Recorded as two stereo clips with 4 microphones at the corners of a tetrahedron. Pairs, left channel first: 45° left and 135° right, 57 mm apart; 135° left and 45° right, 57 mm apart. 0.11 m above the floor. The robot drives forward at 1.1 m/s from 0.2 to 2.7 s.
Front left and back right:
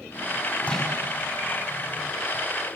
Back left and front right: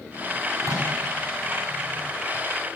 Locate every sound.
0.6 s a microwave: 25° right, 7 m